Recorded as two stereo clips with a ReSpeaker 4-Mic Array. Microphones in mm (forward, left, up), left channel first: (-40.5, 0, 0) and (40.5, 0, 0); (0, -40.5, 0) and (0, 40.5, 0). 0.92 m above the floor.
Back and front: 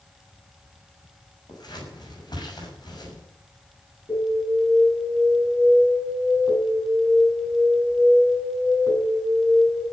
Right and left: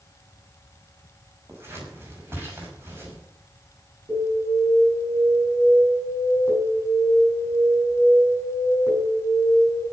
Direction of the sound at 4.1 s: 145° left.